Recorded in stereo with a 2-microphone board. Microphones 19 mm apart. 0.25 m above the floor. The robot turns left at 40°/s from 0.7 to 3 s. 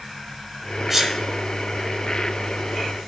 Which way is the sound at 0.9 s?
15° right (ahead or behind).